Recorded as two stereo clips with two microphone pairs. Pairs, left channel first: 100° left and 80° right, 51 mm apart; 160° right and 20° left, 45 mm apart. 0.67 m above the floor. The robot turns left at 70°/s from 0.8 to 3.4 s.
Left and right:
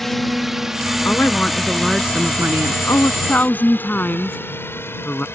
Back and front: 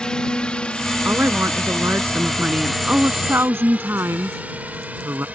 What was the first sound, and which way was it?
A drone, 175° right.